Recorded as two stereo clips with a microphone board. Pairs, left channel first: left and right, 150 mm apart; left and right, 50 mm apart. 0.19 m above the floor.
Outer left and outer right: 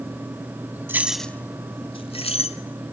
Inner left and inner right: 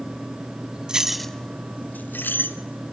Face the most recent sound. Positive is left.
turn(degrees=45)  # may be behind; listen again after turning